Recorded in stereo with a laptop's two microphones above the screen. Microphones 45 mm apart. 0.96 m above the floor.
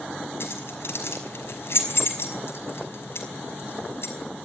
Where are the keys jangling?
70° left (ahead or behind), 5.5 m.